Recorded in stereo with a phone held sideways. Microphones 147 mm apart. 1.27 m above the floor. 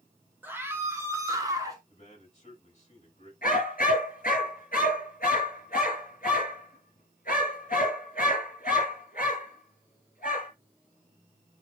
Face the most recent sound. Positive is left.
turn(degrees=75)  # may be behind; listen again after turning